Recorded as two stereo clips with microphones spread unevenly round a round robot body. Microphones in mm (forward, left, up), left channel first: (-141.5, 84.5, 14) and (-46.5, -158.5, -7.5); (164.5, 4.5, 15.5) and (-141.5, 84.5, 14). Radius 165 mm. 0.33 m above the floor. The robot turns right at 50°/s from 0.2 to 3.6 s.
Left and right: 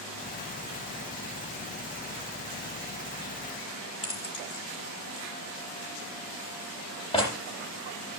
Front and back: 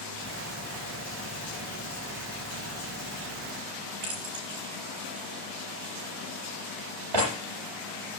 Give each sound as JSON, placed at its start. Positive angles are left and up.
{"t": 4.0, "sound": "keys jangling", "azimuth_deg": 180, "distance_m": 7.5}